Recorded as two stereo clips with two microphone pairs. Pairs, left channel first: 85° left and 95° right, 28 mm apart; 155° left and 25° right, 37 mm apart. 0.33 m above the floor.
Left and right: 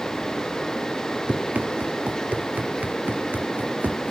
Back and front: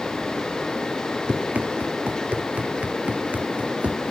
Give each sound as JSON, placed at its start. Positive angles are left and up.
{"t": 1.3, "sound": "running footsteps", "azimuth_deg": -70}